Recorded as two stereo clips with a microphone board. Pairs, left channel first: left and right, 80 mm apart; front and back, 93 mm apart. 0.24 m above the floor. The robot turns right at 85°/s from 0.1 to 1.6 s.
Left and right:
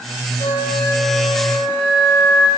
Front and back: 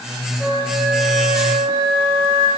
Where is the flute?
105° left, 9.5 m; by 2.5 s 155° right, 9.5 m.